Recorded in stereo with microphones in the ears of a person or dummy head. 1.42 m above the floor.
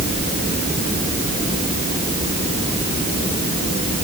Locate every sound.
Only background noise.